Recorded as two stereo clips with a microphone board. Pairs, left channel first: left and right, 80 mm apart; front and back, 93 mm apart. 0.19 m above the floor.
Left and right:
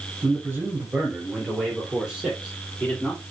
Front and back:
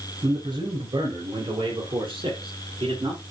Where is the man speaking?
150° right, 3 m; by 3.2 s 165° left, 4.5 m.